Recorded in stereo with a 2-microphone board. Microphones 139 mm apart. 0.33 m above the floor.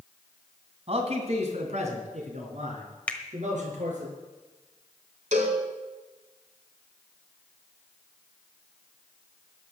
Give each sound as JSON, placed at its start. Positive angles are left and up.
{"t": 0.9, "sound": "a man speaking", "side_deg": -50, "distance_m": 2.5}
{"t": 3.1, "sound": "a finger snap", "side_deg": 10, "distance_m": 1.3}
{"t": 5.3, "sound": "a cowbell", "side_deg": -65, "distance_m": 2.5}